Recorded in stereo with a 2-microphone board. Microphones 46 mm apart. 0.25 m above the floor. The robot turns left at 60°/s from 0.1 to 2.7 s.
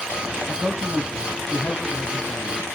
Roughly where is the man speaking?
Behind right.